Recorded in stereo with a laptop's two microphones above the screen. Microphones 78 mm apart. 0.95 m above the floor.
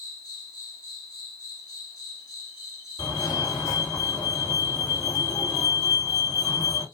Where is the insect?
55° left (ahead or behind), 3 m.